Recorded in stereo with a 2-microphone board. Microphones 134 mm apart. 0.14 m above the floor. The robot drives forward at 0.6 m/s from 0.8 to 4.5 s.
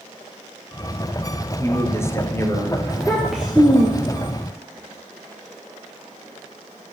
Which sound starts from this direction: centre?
A child speaking, at 2.9 s.